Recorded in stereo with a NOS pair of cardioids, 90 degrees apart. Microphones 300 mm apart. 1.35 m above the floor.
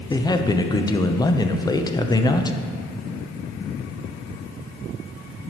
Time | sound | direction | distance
0.1 | a man speaking | 15° left | 0.6 m